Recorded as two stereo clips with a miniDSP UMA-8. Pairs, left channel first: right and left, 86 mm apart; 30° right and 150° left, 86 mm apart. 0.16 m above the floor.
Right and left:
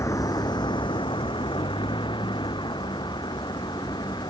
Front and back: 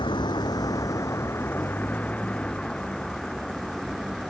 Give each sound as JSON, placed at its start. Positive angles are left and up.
{"t": 0.0, "sound": "a vehicle", "azimuth_deg": -40}